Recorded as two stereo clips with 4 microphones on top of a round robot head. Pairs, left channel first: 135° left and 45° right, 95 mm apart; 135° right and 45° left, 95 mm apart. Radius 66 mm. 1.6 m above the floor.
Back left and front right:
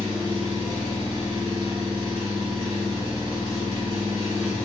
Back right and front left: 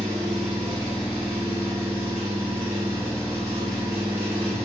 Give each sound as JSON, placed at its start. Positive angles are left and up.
{"t": 0.0, "sound": "an engine running", "azimuth_deg": 115, "distance_m": 1.7}